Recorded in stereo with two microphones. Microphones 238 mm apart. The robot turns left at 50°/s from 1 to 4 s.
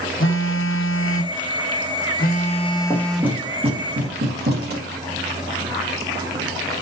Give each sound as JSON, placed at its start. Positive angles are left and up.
{"t": 0.2, "sound": "a phone buzzing", "azimuth_deg": 105, "distance_m": 0.8}
{"t": 2.9, "sound": "knocking", "side_deg": 10, "distance_m": 2.0}